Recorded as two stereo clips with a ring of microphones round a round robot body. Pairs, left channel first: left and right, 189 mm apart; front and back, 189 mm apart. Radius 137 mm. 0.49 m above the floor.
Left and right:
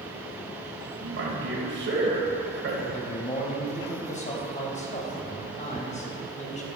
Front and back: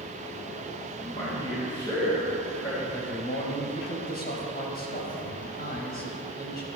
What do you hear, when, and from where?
1.0 s a man speaking: 75° right, 2.5 m
2.9 s a man speaking: 40° left, 3.5 m